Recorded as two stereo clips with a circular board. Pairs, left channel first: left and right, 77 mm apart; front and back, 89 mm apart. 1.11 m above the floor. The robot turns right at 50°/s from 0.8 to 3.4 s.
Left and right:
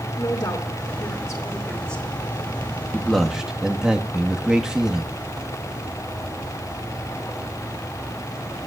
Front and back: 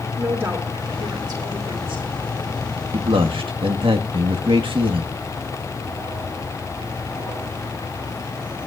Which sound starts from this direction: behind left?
A woman speaking, at 0.2 s.